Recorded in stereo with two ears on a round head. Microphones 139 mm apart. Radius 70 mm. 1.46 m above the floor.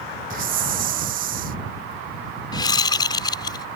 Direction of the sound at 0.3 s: 55° right (ahead or behind).